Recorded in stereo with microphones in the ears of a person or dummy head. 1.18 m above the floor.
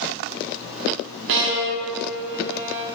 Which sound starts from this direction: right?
A violin, at 1.3 s.